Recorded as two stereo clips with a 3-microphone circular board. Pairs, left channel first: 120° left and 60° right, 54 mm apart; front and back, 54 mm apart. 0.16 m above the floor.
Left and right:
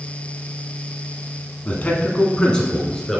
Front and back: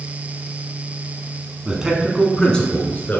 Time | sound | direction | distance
1.6 | a man speaking | 135° left | 1.1 m